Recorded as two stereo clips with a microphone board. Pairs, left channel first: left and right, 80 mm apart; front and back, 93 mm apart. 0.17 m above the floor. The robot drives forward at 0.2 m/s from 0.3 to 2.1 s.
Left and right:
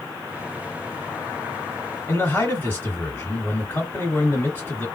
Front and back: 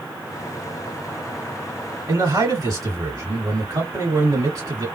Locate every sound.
2.1 s a man speaking: 150° left, 2 m